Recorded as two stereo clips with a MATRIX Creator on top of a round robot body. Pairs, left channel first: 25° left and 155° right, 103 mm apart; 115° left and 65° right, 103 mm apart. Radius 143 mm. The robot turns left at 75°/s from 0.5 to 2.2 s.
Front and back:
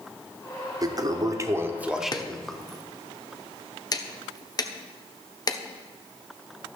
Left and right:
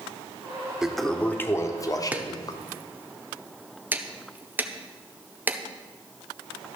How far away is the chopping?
About 1.2 m.